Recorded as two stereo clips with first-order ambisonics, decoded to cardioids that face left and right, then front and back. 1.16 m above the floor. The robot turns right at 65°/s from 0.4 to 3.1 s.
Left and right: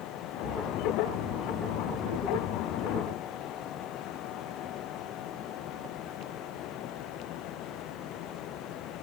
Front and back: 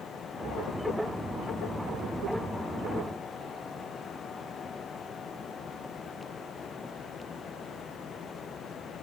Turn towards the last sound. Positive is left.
No sound to turn to.